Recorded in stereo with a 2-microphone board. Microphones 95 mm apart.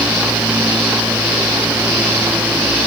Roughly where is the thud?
No thud in this recording.